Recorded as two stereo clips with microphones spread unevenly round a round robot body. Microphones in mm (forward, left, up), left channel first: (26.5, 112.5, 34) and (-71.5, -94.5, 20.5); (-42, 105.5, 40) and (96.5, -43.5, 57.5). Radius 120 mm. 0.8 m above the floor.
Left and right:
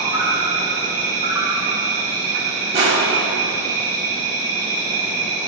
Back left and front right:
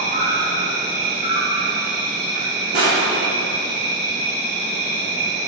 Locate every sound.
0.0 s an insect: 50° right, 1.7 m
2.7 s crushing: 50° right, 2 m